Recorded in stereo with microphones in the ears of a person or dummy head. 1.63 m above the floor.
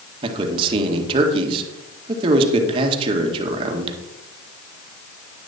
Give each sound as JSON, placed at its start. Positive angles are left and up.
{"t": 0.2, "sound": "a man speaking", "side_deg": -25, "distance_m": 2.0}